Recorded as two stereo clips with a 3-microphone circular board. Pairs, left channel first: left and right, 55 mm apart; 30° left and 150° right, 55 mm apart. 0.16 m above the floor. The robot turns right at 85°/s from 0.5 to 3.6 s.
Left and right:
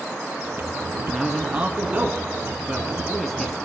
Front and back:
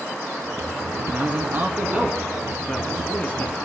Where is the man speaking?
175° left, 1.2 m; by 3.5 s 25° left, 1.2 m.